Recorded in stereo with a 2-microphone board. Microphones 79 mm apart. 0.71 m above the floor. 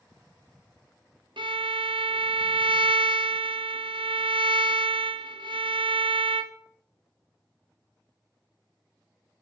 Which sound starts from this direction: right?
A violin, at 1.4 s.